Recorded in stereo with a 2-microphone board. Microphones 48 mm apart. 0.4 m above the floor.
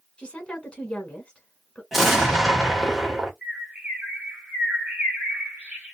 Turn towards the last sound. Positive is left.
turn(degrees=-30)  # may be behind; listen again after turning